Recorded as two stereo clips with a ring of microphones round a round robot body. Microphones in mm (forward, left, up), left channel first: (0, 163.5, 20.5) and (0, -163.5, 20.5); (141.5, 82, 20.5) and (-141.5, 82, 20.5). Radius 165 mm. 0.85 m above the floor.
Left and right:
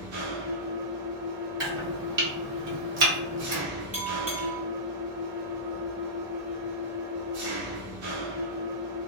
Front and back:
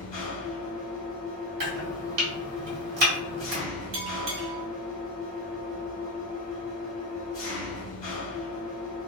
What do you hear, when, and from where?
0.0 s an engine running: 65° right, 1.2 m
1.6 s chopping: 145° right, 1.2 m
3.9 s a bell: 170° right, 0.7 m